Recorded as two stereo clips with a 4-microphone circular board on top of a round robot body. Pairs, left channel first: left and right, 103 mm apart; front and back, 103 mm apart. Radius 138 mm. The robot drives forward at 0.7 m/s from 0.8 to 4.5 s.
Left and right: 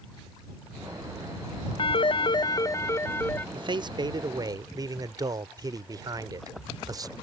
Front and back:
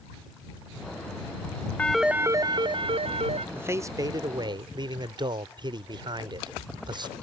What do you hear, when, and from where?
1.8 s a phone ringing: 75° left; by 3.5 s 160° left
3.5 s a man speaking: 115° right; by 7.1 s 140° right